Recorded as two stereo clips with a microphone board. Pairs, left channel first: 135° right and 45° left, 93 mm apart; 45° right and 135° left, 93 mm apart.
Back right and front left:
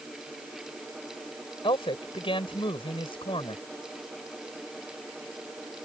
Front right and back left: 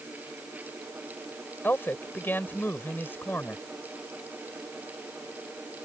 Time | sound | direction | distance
1.6 | a man speaking | 115° right | ?